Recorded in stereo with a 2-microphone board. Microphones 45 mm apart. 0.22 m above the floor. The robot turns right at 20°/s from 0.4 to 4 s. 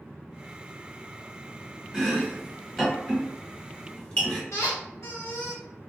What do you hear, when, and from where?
1.9 s chopping: 10° right (ahead or behind), 1.9 m; by 4.4 s 25° left (ahead or behind), 1.9 m
4.5 s a squeak: 80° left, 1.4 m